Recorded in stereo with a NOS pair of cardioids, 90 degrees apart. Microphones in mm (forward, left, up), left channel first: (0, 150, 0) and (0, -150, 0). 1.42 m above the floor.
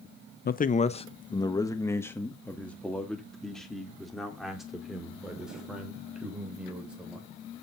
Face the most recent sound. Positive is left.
turn(degrees=-5)